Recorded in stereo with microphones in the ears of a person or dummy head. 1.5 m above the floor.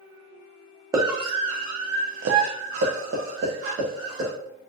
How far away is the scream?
About 0.7 m.